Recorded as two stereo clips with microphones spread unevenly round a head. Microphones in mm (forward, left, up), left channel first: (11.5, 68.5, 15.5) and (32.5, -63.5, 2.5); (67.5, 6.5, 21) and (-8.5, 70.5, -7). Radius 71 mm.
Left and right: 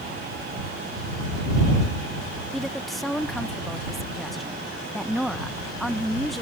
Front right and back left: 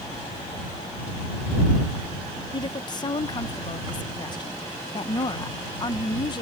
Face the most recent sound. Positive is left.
turn(degrees=10)